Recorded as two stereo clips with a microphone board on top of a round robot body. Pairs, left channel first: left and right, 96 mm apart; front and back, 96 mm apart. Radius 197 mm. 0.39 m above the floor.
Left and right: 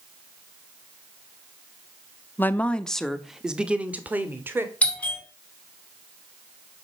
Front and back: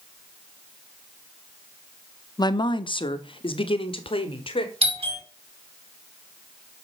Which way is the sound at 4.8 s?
165° left.